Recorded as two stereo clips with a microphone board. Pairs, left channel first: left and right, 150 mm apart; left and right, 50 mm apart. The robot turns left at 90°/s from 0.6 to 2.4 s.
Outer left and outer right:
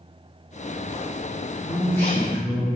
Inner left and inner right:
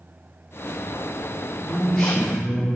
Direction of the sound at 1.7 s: 55° left.